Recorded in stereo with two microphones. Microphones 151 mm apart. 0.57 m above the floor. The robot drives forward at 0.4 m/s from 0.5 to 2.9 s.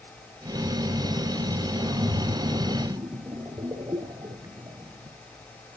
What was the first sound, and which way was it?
A splash, 20° right (ahead or behind).